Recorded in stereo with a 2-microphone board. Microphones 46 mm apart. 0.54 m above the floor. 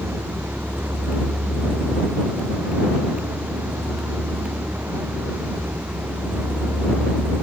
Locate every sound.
0.0 s a vehicle: 70° right (ahead or behind)